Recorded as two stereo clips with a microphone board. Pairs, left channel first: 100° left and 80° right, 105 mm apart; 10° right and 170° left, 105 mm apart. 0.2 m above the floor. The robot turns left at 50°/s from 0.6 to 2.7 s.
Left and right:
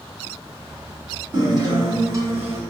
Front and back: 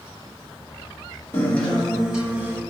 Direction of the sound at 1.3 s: 70° right.